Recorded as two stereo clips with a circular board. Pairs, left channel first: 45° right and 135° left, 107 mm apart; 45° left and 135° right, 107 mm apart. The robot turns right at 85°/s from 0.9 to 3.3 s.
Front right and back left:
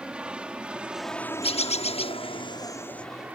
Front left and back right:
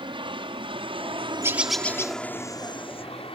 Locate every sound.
0.0 s an aircraft: 145° right; by 3.4 s 60° left
1.4 s a bird: 70° right; by 2.2 s 10° right